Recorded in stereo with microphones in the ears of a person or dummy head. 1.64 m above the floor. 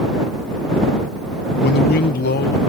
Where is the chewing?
No chewing in this recording.